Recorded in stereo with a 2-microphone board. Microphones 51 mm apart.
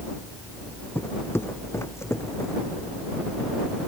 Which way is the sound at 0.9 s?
50° left (ahead or behind).